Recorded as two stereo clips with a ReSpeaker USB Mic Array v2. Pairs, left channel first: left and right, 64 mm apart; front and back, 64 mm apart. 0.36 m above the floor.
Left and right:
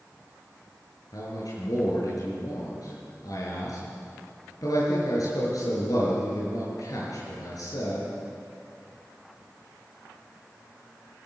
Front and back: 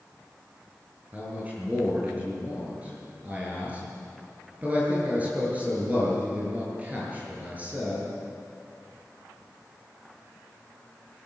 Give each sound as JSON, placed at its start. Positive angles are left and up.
{"t": 1.1, "sound": "a man speaking", "azimuth_deg": 115, "distance_m": 7.5}